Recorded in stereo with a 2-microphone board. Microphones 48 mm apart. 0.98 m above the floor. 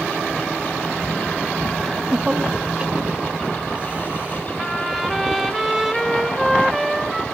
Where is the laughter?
5° left (ahead or behind), 0.6 m; by 4.5 s 35° right (ahead or behind), 3.5 m.